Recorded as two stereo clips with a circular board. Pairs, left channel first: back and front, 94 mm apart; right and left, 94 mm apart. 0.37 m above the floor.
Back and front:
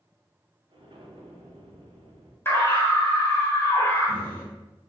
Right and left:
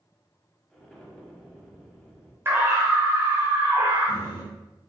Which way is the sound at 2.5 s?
135° left.